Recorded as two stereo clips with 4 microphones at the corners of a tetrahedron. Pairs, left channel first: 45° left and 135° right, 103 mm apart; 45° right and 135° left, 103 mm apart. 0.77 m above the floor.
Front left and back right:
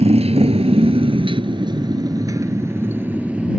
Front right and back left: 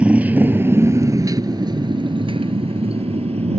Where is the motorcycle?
145° right; by 3.6 s 145° left.